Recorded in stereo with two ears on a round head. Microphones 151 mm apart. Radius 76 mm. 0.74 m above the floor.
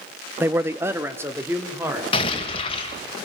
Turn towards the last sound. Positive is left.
turn(degrees=35)  # may be behind; listen again after turning